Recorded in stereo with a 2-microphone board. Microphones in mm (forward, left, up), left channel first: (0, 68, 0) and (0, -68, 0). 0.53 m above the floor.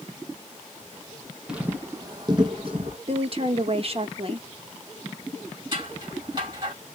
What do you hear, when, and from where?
1.5 s footsteps: 5° right (ahead or behind), 0.9 m; by 3.0 s 45° right (ahead or behind), 1.7 m
3.1 s a woman speaking: 45° right (ahead or behind), 0.9 m
5.7 s scissors: 35° right (ahead or behind), 3 m